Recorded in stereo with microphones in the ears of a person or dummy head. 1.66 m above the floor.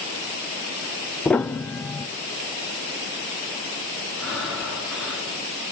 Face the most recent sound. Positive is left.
turn(degrees=0)  # may be behind; listen again after turning